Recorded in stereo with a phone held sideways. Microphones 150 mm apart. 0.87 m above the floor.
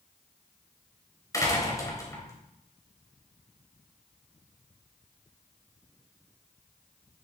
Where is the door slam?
20° left (ahead or behind), 3.5 m.